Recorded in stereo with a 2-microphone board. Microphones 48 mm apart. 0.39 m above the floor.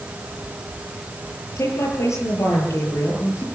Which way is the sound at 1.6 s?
80° left.